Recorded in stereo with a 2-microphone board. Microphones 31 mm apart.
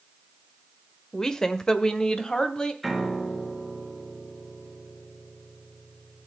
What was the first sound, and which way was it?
A woman speaking, 15° left (ahead or behind).